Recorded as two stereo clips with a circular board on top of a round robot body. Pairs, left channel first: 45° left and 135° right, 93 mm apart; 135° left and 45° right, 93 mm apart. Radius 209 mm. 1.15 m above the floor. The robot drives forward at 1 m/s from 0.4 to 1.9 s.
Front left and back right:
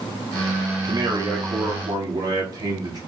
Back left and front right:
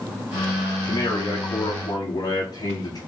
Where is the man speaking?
175° right, 1.4 m.